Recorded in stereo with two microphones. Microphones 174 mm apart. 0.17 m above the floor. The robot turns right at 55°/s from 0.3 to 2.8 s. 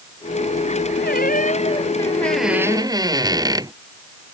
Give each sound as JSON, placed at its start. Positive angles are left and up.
{"t": 1.0, "sound": "a squeak", "azimuth_deg": 105}